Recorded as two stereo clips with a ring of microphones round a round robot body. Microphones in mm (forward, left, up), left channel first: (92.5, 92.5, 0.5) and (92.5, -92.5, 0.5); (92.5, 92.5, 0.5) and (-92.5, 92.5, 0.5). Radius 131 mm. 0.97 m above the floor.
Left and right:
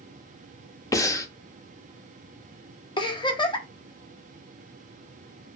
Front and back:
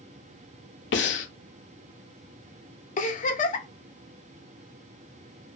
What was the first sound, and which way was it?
Breathing, 15° left.